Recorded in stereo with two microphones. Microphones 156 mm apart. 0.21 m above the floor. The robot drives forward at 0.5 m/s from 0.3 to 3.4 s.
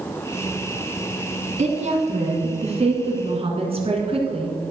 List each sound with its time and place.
1.6 s a woman speaking: 50° right (ahead or behind), 1.9 m; by 4.7 s 40° right (ahead or behind), 2.5 m